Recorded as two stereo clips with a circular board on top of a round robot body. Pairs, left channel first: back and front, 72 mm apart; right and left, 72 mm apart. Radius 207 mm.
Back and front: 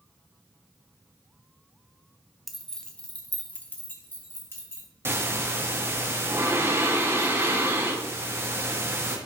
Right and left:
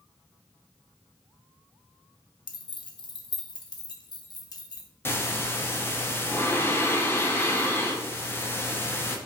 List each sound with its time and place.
2.5 s keys jangling: 90° right, 0.9 m; by 4.9 s 125° right, 1.9 m
5.0 s breathing: 45° right, 1.5 m